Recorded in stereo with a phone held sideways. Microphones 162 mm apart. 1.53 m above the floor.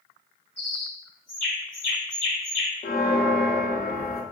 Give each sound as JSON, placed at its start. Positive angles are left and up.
{"t": 0.6, "sound": "a bird", "side_deg": 10, "distance_m": 1.4}
{"t": 2.8, "sound": "a bell", "side_deg": 70, "distance_m": 0.5}